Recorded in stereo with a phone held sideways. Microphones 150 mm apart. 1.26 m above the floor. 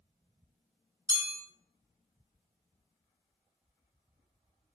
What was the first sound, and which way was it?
A chime, 20° right (ahead or behind).